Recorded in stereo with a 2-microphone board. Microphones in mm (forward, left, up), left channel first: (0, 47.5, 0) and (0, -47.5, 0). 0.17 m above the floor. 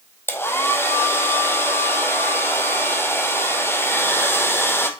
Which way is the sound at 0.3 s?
25° left (ahead or behind).